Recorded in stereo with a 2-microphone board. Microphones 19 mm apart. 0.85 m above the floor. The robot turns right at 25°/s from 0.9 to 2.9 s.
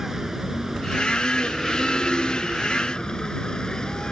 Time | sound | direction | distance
0.0 | a vehicle | 20° right | ?